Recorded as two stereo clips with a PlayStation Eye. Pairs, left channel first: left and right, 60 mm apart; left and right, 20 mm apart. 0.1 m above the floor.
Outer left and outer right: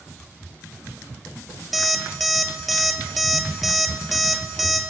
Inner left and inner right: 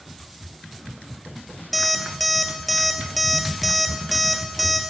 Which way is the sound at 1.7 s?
Centre (ahead or behind).